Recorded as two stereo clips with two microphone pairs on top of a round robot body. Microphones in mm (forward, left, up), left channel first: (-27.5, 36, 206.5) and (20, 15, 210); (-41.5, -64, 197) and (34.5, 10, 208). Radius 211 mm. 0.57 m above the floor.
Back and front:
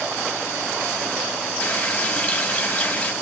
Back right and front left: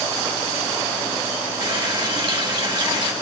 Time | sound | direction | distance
1.6 | a running tap | 100° left | 1.8 m